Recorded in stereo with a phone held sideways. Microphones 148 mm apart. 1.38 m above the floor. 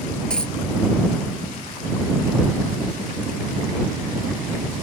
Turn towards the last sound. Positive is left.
turn(degrees=5)  # may be behind; listen again after turning